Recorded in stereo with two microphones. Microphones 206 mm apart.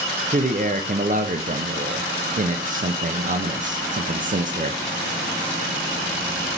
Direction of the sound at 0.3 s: 40° right (ahead or behind).